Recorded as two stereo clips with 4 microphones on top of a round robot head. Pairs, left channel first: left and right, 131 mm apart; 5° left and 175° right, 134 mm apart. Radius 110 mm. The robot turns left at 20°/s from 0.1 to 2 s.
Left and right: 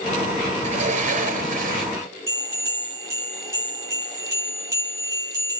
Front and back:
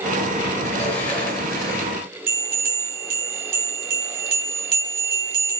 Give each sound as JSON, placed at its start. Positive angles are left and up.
{"t": 0.6, "sound": "a sliding door", "azimuth_deg": -65, "distance_m": 4.5}
{"t": 2.3, "sound": "a bell", "azimuth_deg": -165, "distance_m": 4.0}